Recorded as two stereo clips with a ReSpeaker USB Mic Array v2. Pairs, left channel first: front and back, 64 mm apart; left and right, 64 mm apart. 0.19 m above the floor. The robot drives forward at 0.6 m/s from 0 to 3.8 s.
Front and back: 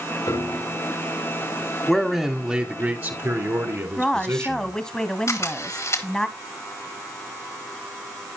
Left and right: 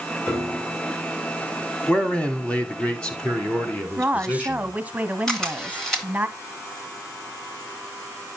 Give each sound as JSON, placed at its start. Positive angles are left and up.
{"t": 0.3, "sound": "a piano", "azimuth_deg": 20, "distance_m": 3.0}
{"t": 1.9, "sound": "a man speaking", "azimuth_deg": 75, "distance_m": 1.1}
{"t": 4.0, "sound": "a woman speaking", "azimuth_deg": -60, "distance_m": 1.0}
{"t": 5.3, "sound": "a camera shutter", "azimuth_deg": 15, "distance_m": 2.5}